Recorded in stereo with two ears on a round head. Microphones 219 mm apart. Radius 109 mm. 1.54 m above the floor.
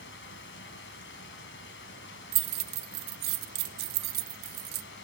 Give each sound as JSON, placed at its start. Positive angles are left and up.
{"t": 0.0, "sound": "running water", "side_deg": 50, "distance_m": 2.5}
{"t": 2.3, "sound": "keys jangling", "side_deg": -40, "distance_m": 0.6}